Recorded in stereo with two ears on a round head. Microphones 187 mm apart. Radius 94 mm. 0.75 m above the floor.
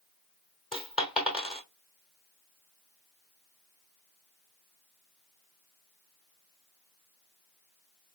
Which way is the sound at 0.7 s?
5° right (ahead or behind).